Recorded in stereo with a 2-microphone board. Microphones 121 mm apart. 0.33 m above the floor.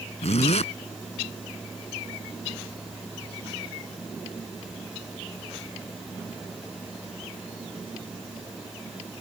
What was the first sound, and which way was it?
A zipper, 65° left (ahead or behind).